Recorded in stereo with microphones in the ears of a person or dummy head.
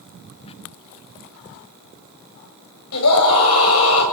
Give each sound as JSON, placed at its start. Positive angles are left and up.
{"t": 0.4, "sound": "a squeak", "side_deg": 30, "distance_m": 0.8}
{"t": 2.9, "sound": "a scream", "side_deg": 80, "distance_m": 8.5}